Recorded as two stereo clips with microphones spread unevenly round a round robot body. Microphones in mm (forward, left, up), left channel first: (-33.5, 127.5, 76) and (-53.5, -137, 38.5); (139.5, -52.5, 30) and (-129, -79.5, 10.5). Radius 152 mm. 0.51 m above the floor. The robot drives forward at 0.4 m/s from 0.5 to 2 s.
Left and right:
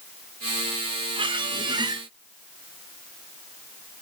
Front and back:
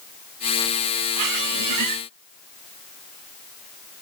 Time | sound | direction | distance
1.2 | a squeak | 170° right | 1.0 m